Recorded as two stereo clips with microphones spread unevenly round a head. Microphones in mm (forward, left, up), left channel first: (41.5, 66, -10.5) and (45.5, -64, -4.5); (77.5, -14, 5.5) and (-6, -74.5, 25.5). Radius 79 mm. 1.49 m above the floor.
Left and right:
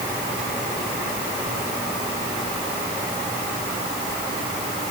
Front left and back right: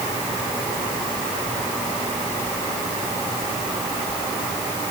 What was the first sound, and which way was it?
Only background noise.